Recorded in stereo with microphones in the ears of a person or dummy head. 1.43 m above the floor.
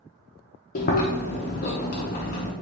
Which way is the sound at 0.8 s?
45° left (ahead or behind).